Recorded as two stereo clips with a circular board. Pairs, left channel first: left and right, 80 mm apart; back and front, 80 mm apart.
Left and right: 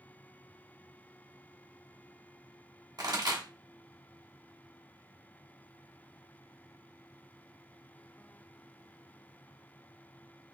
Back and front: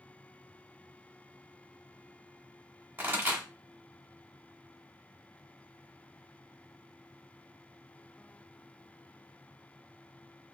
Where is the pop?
65° right, 1.4 m.